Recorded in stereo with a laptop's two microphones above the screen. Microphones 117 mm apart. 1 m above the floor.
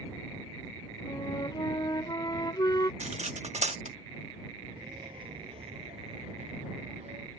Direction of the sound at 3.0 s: 75° right (ahead or behind).